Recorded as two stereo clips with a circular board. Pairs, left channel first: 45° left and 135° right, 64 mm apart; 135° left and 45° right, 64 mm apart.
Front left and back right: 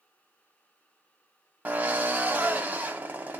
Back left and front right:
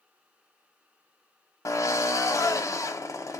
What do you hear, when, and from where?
1.6 s a drill: 160° left, 0.7 m